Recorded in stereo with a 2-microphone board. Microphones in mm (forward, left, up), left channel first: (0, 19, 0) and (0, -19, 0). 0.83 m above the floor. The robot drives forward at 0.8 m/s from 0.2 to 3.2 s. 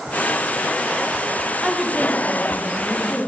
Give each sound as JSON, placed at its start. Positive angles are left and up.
{"t": 1.6, "sound": "a woman speaking", "side_deg": 0, "distance_m": 0.8}